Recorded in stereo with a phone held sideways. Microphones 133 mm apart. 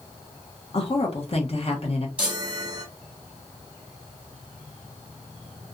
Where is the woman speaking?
45° left (ahead or behind), 1.0 m.